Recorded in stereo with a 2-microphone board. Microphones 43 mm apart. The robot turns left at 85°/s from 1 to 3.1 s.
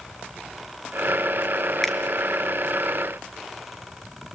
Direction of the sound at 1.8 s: 10° left (ahead or behind).